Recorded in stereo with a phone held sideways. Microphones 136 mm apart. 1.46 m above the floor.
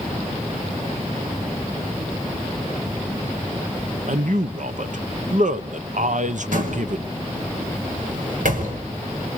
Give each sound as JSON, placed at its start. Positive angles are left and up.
{"t": 4.1, "sound": "a man speaking", "side_deg": -65, "distance_m": 1.0}
{"t": 6.5, "sound": "a door slam", "side_deg": -75, "distance_m": 5.5}